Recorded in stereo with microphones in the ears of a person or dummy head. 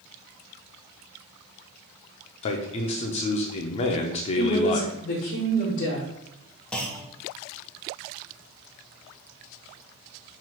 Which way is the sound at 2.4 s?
30° left (ahead or behind).